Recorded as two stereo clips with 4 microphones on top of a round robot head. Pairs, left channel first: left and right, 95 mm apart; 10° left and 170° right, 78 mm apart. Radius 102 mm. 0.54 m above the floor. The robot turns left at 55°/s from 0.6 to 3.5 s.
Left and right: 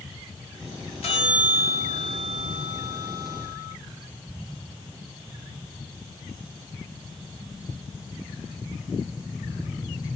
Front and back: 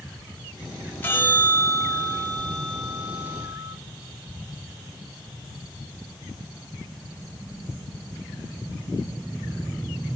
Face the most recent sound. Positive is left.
turn(degrees=-60)